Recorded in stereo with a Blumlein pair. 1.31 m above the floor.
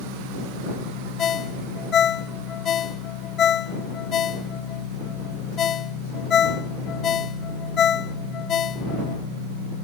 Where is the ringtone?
25° left.